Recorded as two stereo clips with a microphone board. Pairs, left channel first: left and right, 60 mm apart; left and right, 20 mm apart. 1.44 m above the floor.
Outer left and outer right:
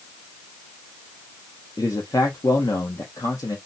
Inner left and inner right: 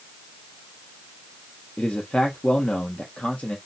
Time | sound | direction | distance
1.8 | a man speaking | 75° left (ahead or behind) | 0.9 m